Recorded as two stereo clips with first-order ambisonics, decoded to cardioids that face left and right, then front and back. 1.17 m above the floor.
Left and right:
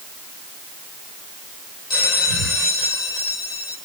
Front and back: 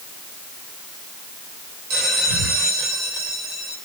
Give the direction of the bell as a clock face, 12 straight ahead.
7 o'clock.